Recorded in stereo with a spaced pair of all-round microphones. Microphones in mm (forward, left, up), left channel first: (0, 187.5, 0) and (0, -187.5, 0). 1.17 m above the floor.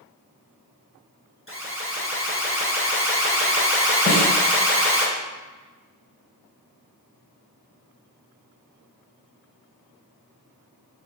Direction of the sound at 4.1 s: 20° left (ahead or behind).